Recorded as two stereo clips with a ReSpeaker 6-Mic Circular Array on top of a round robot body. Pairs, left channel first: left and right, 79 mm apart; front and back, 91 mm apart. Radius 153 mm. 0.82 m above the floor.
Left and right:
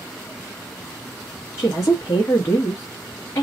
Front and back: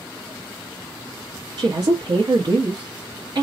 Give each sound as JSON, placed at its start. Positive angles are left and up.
{"t": 1.6, "sound": "a woman speaking", "azimuth_deg": 145, "distance_m": 1.0}